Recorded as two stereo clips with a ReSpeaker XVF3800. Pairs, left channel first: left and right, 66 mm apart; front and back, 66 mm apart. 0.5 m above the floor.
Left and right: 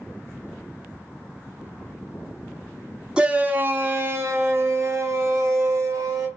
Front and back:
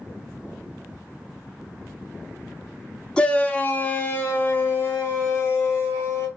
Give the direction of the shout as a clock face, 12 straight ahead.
2 o'clock.